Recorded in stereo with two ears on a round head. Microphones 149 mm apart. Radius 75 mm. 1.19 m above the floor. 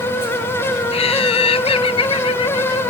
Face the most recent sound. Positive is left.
turn(degrees=30)  # may be behind; listen again after turning